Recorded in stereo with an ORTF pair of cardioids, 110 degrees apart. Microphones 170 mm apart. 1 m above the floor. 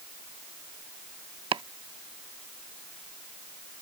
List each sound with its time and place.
1.5 s chopping: 30° right